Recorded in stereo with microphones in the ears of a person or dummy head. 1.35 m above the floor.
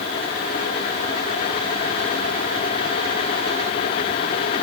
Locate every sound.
Only background noise.